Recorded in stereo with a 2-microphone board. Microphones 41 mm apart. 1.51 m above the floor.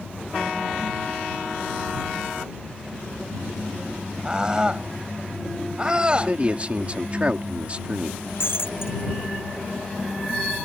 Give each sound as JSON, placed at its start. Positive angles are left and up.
{"t": 4.2, "sound": "a scream", "side_deg": -20}
{"t": 6.1, "sound": "a man speaking", "side_deg": -30}
{"t": 8.4, "sound": "breaking glass", "side_deg": 65}